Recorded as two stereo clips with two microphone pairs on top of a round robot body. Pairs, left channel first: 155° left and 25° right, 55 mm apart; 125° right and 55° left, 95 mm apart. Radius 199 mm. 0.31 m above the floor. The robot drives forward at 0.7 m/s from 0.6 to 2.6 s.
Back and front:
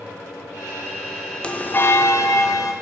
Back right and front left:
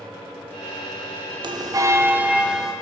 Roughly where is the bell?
Left.